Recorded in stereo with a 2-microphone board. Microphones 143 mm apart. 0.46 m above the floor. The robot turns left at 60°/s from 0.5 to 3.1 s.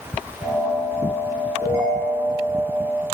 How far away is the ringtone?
About 3.5 m.